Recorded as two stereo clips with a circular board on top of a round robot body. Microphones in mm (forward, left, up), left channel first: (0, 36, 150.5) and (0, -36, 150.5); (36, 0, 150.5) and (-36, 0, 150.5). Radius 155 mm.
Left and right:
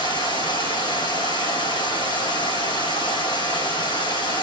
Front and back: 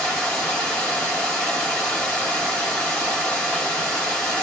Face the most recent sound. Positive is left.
turn(degrees=80)